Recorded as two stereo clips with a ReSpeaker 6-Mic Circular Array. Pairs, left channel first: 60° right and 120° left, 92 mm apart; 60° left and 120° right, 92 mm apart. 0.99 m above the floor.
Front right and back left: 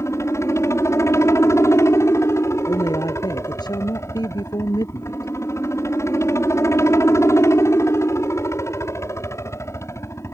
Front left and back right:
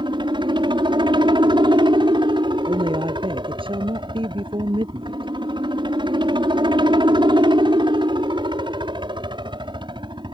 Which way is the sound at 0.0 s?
115° right.